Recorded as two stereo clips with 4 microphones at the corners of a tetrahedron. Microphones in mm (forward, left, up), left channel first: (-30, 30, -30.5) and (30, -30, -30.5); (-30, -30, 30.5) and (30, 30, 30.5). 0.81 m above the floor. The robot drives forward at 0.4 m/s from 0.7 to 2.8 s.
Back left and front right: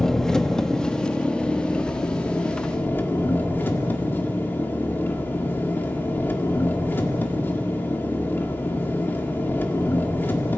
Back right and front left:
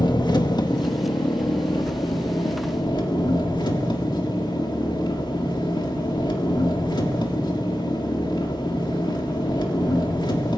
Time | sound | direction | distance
0.0 | an engine running | 145° right | 1.1 m